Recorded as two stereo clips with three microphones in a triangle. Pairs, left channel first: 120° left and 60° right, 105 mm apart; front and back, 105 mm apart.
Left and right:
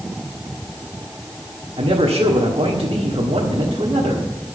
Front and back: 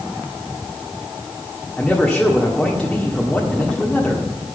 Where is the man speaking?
85° right, 1.5 m.